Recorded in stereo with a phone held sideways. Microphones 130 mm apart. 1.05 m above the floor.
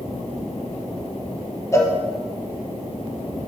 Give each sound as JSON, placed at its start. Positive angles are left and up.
{"t": 1.7, "sound": "a cowbell", "side_deg": 20, "distance_m": 0.7}